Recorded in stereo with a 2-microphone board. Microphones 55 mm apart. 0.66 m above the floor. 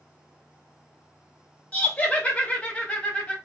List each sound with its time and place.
1.7 s laughter: 25° left (ahead or behind), 0.5 m